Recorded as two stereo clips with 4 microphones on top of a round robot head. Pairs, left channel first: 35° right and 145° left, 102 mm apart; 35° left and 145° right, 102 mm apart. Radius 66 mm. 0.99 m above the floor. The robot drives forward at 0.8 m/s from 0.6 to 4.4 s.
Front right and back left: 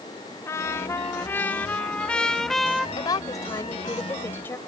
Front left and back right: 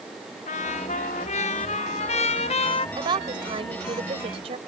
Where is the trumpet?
30° left; by 2.9 s 55° left.